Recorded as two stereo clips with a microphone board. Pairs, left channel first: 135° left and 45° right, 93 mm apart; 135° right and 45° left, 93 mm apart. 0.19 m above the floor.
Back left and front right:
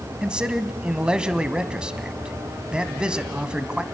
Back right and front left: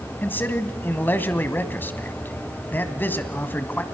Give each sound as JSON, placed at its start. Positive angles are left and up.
{"t": 0.2, "sound": "a man speaking", "azimuth_deg": -110, "distance_m": 1.0}